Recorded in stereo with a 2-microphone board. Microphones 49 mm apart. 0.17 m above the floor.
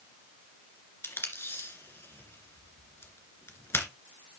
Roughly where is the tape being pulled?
Left.